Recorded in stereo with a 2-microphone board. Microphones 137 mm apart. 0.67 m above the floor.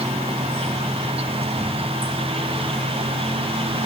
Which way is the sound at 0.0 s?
50° right (ahead or behind).